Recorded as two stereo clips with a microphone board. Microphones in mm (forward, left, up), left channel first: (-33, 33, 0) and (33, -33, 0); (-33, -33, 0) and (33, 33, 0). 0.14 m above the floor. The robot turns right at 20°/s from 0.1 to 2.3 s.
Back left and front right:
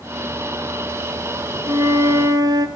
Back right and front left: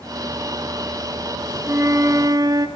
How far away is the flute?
About 1.8 m.